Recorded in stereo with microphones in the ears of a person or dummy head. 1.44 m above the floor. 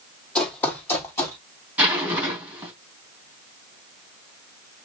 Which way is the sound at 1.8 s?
10° right (ahead or behind).